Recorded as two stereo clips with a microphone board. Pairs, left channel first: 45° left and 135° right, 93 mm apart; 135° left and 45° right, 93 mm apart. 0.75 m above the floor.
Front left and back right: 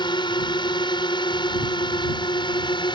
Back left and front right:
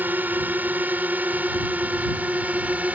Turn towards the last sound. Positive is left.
turn(degrees=25)